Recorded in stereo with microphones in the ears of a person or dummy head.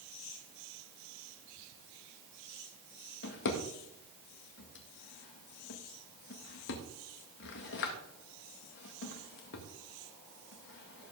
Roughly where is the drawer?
Left.